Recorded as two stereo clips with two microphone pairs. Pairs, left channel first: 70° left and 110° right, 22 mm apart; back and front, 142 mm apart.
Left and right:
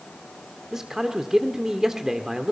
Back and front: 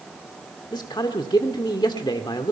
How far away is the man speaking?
About 1.4 m.